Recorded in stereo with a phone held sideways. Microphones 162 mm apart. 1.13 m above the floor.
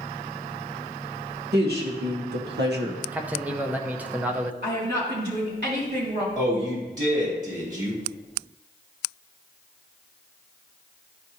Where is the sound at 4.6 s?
75° right (ahead or behind), 3 m.